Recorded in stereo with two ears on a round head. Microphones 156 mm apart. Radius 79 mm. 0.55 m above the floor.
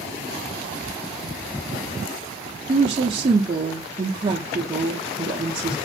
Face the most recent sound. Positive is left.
turn(degrees=-30)  # may be behind; listen again after turning